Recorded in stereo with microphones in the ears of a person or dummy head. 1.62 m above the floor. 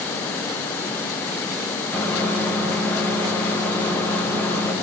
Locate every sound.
1.9 s a microwave: 10° left (ahead or behind), 0.7 m